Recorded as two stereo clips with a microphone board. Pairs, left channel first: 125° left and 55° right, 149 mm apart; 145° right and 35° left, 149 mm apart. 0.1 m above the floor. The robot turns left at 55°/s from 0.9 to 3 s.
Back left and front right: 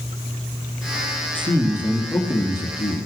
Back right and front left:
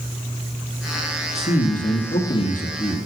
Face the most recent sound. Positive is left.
turn(degrees=160)